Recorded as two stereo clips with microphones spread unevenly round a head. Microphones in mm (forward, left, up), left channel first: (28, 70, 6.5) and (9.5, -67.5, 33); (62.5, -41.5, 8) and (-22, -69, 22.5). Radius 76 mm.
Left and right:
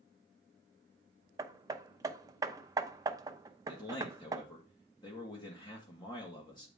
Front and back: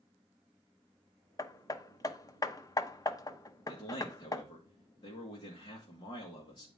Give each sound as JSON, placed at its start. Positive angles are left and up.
{"t": 1.4, "sound": "hammering", "azimuth_deg": -30, "distance_m": 0.8}
{"t": 3.7, "sound": "a man speaking", "azimuth_deg": 30, "distance_m": 1.9}